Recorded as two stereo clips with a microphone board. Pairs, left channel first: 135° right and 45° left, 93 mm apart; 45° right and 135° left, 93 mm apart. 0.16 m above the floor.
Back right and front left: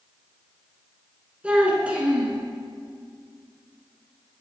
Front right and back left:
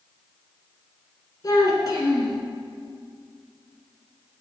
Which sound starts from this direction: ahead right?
A child speaking, at 1.4 s.